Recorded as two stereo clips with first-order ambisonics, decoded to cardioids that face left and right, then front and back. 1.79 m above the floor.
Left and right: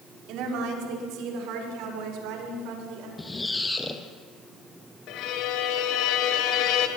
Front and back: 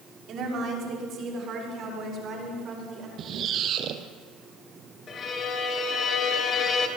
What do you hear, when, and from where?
0.3 s a woman speaking: 125° right, 6 m; by 3.1 s 120° right, 9 m
3.2 s a squeak: 165° left, 2 m
5.1 s a violin: 60° left, 3 m